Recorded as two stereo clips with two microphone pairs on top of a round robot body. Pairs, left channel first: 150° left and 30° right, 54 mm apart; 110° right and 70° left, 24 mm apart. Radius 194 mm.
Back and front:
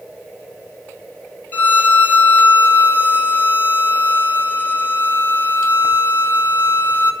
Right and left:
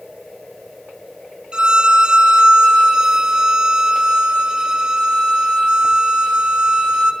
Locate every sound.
1.5 s a violin: 100° left, 1.7 m